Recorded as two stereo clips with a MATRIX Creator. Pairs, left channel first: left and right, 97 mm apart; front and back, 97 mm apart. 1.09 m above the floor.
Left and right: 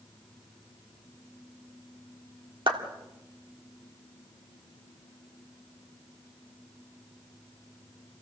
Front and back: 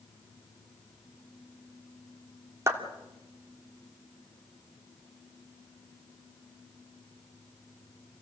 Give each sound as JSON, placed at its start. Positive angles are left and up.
{"t": 2.7, "sound": "a clap", "azimuth_deg": -120, "distance_m": 2.5}